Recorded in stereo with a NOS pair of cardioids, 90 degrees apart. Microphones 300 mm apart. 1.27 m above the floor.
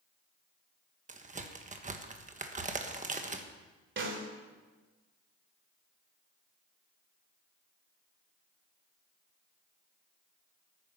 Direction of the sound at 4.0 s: 40° right.